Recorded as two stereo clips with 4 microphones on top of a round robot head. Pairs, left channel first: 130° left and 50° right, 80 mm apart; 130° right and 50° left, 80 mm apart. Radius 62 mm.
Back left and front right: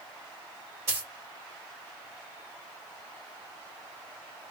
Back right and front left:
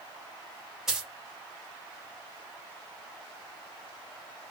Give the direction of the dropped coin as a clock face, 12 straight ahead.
1 o'clock.